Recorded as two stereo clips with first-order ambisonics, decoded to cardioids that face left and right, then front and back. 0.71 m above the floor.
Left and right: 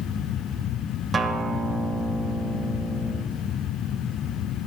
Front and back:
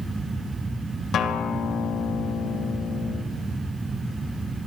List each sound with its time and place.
1.1 s a guitar: 30° right, 1.2 m